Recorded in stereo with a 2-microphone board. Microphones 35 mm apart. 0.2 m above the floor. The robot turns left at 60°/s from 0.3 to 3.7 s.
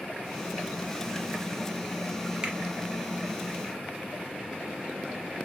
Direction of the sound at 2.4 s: 25° right (ahead or behind).